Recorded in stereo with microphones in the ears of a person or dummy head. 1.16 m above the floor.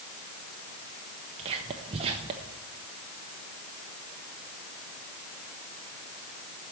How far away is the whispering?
About 0.7 m.